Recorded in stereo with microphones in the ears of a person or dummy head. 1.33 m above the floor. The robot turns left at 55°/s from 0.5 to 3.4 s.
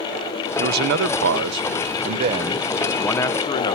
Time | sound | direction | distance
0.6 | a man speaking | 55° right | 0.7 m